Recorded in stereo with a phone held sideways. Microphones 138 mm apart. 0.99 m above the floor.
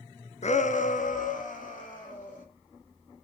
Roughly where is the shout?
Left.